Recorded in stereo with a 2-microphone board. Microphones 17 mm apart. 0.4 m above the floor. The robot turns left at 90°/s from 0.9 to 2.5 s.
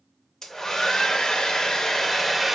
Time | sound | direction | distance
0.4 | a hair dryer | 145° left | 0.5 m